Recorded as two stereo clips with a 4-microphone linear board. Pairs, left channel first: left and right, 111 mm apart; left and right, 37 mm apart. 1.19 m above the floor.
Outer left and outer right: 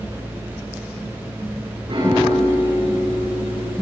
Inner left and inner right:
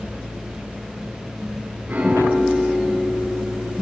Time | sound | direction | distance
1.9 | a piano | 55° right (ahead or behind) | 8 m